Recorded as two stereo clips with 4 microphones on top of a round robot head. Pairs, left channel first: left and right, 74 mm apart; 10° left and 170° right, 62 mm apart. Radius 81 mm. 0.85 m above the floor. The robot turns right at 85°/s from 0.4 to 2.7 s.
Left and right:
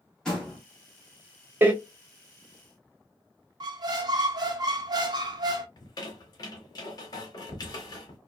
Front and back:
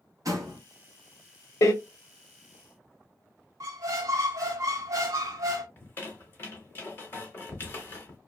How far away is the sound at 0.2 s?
About 1.3 m.